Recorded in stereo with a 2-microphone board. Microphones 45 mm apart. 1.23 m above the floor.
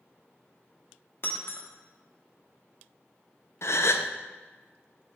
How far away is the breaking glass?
About 1.1 m.